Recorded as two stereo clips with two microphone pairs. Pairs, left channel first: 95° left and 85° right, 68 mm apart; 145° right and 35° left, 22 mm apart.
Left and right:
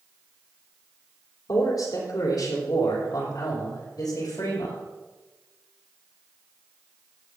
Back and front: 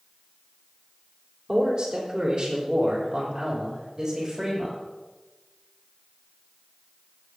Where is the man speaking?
80° left, 5 m; by 4.8 s 100° left, 8 m.